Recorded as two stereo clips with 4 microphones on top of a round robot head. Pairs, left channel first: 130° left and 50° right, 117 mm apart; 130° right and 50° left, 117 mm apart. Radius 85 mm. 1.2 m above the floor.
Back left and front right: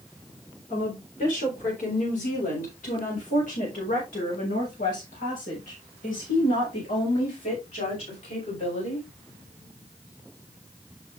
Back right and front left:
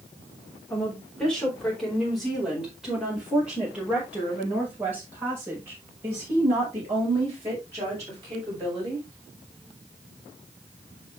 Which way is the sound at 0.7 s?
150° left.